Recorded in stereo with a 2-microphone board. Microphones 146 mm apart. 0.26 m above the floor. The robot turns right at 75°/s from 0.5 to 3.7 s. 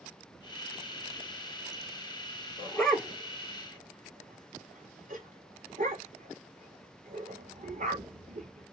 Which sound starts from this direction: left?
A dog barking, at 2.6 s.